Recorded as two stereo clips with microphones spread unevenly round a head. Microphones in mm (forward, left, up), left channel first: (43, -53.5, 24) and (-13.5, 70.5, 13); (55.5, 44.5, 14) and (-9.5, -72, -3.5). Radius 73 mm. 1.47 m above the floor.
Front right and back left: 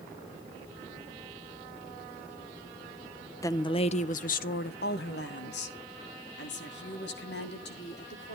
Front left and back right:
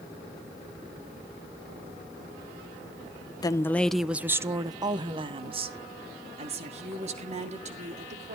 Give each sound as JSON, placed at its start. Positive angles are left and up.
{"t": 3.4, "sound": "a woman speaking", "azimuth_deg": 0, "distance_m": 0.8}